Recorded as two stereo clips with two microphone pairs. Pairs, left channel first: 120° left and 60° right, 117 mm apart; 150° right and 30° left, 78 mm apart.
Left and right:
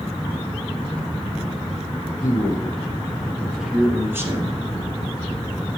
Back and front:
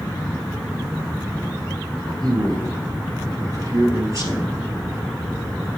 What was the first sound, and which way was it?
A man speaking, 55° left.